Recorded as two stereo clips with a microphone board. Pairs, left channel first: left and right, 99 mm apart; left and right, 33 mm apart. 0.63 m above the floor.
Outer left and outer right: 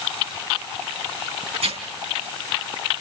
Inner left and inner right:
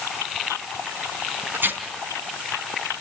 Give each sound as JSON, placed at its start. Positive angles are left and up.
{"t": 1.5, "sound": "tearing paper", "side_deg": -85, "distance_m": 4.0}